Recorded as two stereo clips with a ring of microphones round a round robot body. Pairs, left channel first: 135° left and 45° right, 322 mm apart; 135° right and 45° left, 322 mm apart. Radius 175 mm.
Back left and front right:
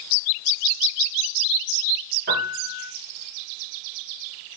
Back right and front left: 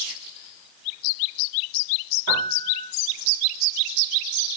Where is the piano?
10° left, 5 m.